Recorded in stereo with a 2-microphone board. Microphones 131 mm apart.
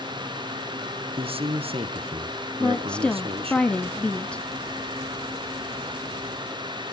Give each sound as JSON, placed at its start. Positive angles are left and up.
{"t": 1.2, "sound": "a man speaking", "side_deg": -45, "distance_m": 2.0}
{"t": 2.6, "sound": "a woman speaking", "side_deg": 10, "distance_m": 1.1}